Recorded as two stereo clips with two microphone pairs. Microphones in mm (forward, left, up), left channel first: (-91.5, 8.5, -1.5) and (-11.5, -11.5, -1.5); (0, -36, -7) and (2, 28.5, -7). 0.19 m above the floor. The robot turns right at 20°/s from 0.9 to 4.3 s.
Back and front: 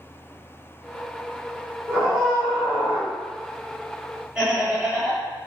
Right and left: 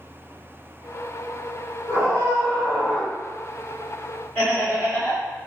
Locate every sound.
1.9 s a scream: 95° right, 1.7 m; by 3.1 s 70° right, 1.7 m
4.3 s laughter: 80° right, 1.6 m